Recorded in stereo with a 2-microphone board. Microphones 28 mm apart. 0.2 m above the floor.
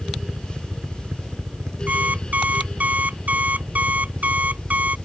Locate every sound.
0.0 s a helicopter: 30° right (ahead or behind); by 5.1 s 70° right (ahead or behind)
1.9 s an alarm clock: 65° right (ahead or behind)